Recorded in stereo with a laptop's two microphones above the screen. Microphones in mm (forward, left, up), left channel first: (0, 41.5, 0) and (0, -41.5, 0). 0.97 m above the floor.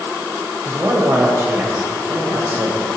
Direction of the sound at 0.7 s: 35° right (ahead or behind).